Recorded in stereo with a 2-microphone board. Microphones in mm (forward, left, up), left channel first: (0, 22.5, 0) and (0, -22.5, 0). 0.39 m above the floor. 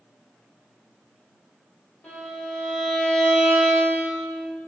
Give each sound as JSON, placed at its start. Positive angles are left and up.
{"t": 2.0, "sound": "a violin", "side_deg": 30, "distance_m": 1.7}